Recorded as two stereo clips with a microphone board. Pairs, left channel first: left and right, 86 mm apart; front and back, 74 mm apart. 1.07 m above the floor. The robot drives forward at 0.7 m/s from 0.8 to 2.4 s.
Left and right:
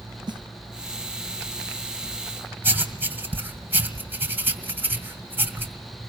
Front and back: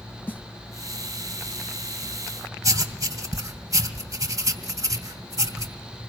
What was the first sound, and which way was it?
A snare drum, 65° right.